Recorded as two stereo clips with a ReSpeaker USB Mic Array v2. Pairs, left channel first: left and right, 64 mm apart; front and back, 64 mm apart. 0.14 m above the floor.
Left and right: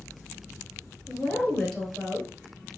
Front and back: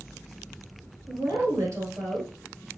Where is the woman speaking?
165° left, 1.7 m.